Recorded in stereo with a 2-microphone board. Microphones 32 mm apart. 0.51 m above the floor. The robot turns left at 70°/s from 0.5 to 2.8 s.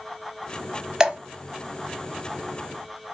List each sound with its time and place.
1.0 s dripping: 20° right (ahead or behind), 0.5 m; by 1.2 s 30° right (ahead or behind), 0.5 m